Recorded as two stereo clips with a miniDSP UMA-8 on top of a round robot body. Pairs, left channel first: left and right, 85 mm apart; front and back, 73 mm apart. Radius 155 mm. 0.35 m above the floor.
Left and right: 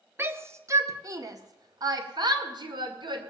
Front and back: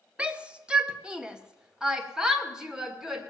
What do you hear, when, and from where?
0.2 s a shout: 120° right, 1.5 m; by 3.2 s 95° right, 2.5 m